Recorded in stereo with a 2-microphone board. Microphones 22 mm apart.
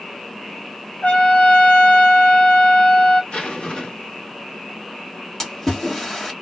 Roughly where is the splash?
Centre.